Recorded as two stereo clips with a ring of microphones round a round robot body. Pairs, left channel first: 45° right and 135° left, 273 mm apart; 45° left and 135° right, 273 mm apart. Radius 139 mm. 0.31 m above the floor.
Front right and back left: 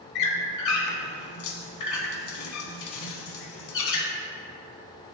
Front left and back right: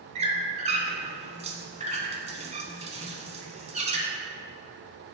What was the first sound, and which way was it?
A squeak, 70° right.